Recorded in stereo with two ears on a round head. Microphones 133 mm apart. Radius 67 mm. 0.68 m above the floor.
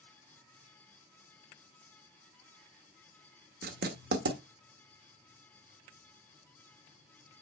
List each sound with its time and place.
3.6 s writing: 65° right (ahead or behind), 1.5 m